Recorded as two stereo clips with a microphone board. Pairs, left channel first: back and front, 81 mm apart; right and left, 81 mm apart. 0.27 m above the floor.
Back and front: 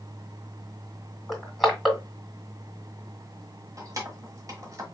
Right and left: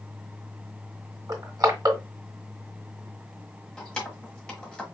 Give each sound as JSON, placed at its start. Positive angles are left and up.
{"t": 1.3, "sound": "crushing", "azimuth_deg": 90, "distance_m": 1.9}
{"t": 3.8, "sound": "keys jangling", "azimuth_deg": -15, "distance_m": 1.3}